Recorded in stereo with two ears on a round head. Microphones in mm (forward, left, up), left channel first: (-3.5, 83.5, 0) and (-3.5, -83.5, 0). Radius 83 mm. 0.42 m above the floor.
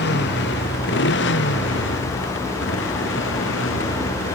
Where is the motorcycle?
65° left (ahead or behind); by 4.3 s 80° left.